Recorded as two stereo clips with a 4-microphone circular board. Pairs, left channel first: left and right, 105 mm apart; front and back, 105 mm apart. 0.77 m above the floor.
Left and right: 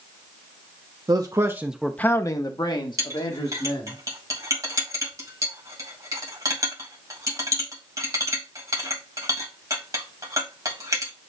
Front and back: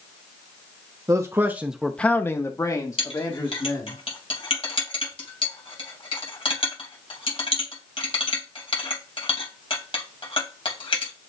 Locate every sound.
1.1 s a man speaking: 130° right, 0.9 m; by 4.0 s 55° left, 2.5 m
3.0 s a clink: 30° right, 2.5 m